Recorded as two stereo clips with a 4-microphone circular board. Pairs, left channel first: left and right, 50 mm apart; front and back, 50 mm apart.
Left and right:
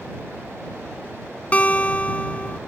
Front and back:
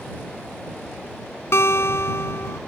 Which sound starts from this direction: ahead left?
A guitar, at 1.5 s.